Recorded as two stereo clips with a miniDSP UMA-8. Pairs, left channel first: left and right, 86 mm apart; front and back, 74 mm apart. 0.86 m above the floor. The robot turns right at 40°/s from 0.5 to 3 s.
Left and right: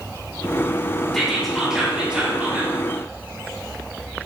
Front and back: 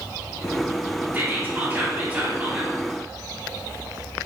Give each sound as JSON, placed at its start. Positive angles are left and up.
{"t": 1.1, "sound": "whispering", "azimuth_deg": 175, "distance_m": 0.8}